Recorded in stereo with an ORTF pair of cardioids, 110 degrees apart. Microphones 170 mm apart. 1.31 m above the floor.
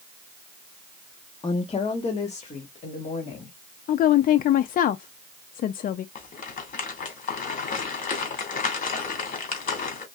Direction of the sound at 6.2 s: 50° left.